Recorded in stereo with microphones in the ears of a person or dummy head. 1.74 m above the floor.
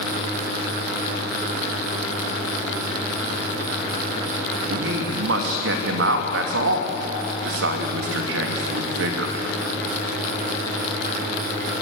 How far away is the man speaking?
About 3 m.